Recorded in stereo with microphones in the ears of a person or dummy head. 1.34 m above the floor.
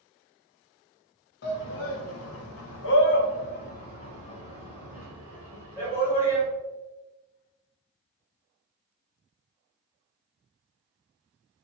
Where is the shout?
60° left (ahead or behind), 0.9 m; by 6.5 s 15° left (ahead or behind), 2 m.